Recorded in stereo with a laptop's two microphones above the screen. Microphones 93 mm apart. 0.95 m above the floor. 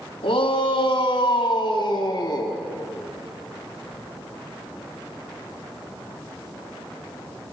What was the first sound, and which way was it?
A shout, 75° left (ahead or behind).